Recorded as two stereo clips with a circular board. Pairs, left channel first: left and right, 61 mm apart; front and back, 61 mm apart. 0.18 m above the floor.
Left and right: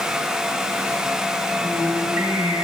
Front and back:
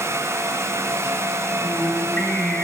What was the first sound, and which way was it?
Singing, 85° right.